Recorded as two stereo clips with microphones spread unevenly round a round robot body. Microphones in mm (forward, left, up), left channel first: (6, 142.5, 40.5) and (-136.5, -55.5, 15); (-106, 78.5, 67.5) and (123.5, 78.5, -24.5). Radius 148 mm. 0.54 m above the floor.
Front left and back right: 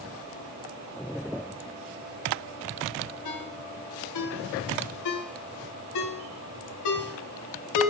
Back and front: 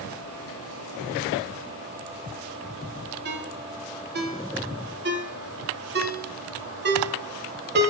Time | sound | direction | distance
3.2 | a ringtone | 40° left | 1.6 m